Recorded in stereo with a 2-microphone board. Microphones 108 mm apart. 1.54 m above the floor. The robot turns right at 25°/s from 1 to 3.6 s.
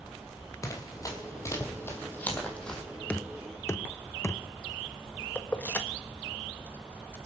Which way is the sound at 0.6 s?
30° left (ahead or behind).